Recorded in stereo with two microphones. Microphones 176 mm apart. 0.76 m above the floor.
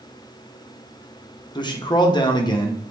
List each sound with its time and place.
1.6 s a man speaking: 25° left (ahead or behind), 0.8 m